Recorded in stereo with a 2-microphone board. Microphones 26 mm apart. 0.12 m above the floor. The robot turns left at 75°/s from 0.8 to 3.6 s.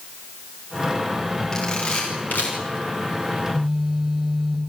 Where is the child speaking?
I don't hear a child speaking.